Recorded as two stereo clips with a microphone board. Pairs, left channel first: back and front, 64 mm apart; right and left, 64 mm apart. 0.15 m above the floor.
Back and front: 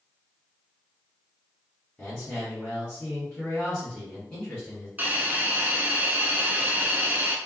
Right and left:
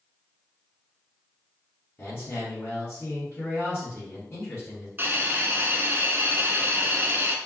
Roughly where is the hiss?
Ahead left.